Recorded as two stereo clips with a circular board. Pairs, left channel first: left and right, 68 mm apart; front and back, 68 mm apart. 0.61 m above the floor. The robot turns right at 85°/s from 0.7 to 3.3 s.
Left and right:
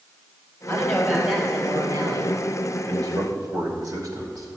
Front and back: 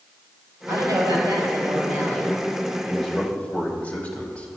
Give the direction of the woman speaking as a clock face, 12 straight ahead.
8 o'clock.